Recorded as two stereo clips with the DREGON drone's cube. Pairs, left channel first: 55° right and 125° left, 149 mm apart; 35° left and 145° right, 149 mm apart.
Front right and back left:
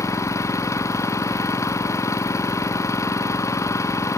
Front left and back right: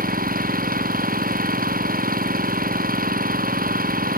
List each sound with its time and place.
0.0 s an engine running: 125° right